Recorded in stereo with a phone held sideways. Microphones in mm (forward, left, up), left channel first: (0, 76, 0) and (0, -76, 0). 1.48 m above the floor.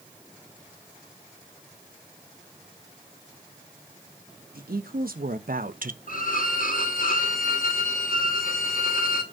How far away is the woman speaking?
About 1.8 m.